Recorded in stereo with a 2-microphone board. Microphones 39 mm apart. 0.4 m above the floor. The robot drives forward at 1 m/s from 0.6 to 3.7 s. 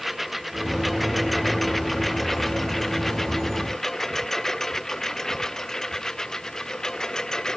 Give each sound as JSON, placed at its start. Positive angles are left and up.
{"t": 0.0, "sound": "a lawn mower", "side_deg": 0}